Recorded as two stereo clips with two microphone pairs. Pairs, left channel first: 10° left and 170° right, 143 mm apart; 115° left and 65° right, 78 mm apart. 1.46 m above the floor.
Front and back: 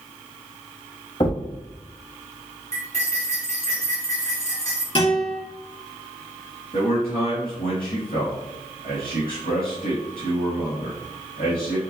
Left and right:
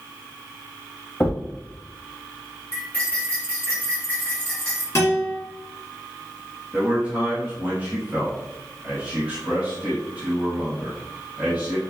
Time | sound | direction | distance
1.2 | a thud | 50° left | 1.1 m
2.7 | cutlery clinking | 45° left | 2 m
5.0 | a guitar | 55° left | 2 m
6.7 | a man speaking | straight ahead | 2 m